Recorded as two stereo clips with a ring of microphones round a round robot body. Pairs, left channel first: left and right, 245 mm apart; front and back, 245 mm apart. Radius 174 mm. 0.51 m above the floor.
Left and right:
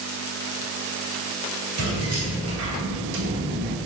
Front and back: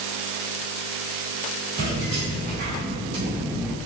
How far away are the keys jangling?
About 1.6 m.